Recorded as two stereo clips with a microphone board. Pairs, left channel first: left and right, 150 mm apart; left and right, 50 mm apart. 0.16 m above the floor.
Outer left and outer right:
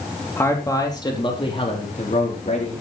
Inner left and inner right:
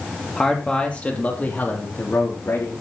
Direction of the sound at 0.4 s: 15° left (ahead or behind).